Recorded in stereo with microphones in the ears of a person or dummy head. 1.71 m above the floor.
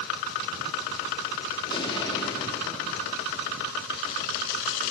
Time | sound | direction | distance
1.7 | an explosion | 25° left (ahead or behind) | 5 m